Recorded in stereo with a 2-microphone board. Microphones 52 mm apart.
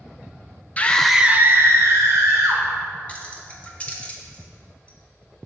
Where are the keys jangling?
25° left (ahead or behind), 0.9 m.